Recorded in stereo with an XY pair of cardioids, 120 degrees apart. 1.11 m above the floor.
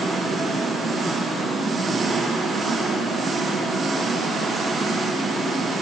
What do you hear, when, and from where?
0.0 s an engine running: 40° right, 1.4 m